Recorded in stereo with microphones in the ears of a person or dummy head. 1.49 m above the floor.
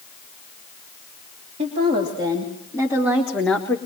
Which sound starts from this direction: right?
A woman speaking, at 1.6 s.